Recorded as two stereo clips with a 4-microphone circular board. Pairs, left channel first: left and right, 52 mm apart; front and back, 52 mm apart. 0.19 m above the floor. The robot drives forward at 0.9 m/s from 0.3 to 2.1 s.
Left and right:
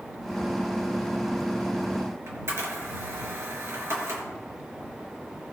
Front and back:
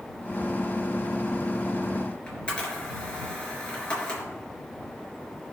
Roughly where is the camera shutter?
Right.